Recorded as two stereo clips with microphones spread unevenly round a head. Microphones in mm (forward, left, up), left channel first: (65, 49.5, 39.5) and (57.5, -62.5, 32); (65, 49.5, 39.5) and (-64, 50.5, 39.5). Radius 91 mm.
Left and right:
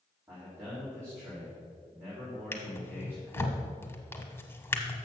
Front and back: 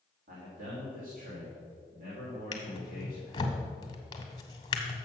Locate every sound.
0.3 s a man speaking: 170° right, 3 m
2.5 s a drawer: 35° left, 1.0 m